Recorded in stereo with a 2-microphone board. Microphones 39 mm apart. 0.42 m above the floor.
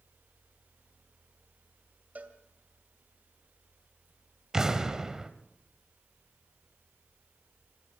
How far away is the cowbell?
About 1.9 m.